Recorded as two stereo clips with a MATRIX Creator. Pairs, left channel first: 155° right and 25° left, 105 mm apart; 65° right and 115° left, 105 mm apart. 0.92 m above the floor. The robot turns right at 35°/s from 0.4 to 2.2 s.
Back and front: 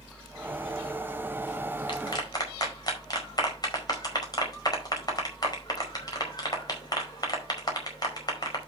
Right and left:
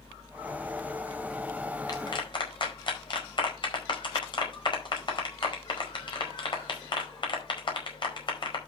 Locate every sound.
1.9 s a clap: 120° right, 4.5 m; by 8.6 s 105° right, 4.5 m